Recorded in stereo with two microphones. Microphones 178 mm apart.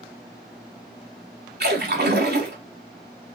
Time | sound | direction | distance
1.6 | a splash | 65° right (ahead or behind) | 0.7 m